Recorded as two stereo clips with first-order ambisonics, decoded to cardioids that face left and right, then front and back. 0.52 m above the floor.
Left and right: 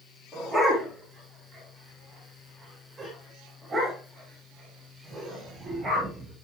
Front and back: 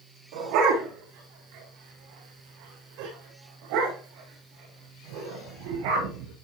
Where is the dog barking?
175° left, 10 m; by 6.3 s 160° right, 12.5 m.